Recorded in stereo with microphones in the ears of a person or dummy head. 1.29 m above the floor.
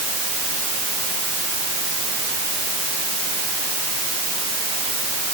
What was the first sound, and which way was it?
Only background noise.